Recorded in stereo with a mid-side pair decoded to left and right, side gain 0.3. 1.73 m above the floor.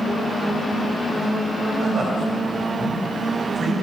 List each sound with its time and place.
1.8 s a man speaking: 55° right, 4.5 m